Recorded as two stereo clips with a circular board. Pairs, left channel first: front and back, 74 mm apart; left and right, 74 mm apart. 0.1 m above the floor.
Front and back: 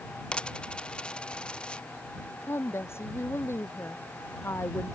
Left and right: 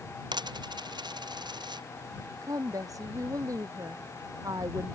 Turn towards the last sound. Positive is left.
turn(degrees=-55)